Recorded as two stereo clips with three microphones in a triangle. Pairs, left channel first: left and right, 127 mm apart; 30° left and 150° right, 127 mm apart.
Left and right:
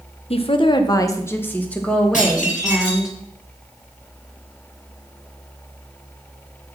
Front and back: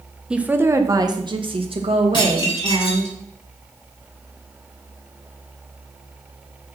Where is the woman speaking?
125° left, 1.2 m; by 3.1 s 175° right, 3 m.